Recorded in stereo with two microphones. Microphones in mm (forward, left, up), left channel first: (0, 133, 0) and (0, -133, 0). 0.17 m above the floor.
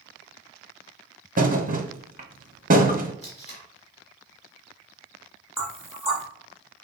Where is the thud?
30° right (ahead or behind), 0.7 m.